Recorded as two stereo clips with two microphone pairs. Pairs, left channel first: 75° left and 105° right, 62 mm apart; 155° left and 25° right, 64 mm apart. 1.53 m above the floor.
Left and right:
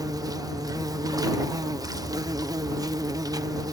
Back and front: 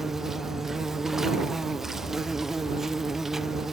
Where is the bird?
I don't hear a bird.